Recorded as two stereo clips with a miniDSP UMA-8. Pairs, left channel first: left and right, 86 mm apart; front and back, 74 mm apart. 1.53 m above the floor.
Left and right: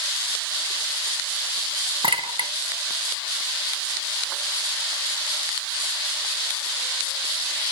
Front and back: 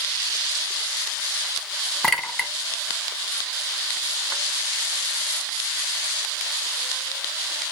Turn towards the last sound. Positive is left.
turn(degrees=-85)